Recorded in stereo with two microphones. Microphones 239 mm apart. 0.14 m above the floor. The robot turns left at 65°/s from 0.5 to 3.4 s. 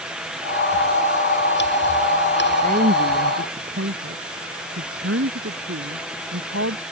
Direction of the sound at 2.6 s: 35° right (ahead or behind).